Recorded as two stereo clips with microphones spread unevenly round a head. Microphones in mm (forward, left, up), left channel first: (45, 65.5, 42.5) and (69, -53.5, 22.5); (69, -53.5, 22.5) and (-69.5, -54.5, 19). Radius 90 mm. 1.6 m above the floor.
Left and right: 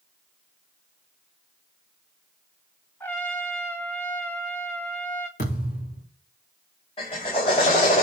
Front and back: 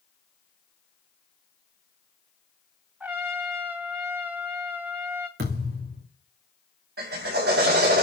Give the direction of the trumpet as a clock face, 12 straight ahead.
8 o'clock.